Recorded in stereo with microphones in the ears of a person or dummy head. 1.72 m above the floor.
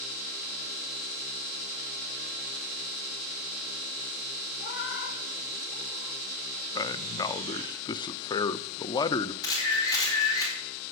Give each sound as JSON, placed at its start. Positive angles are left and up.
{"t": 4.6, "sound": "a cat meowing", "side_deg": 60, "distance_m": 1.8}
{"t": 6.8, "sound": "a man speaking", "side_deg": 30, "distance_m": 0.6}
{"t": 9.4, "sound": "a camera shutter", "side_deg": 20, "distance_m": 4.5}